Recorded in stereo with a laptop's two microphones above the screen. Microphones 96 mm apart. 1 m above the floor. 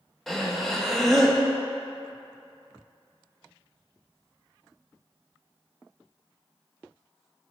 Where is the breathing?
Centre (ahead or behind), 0.5 m.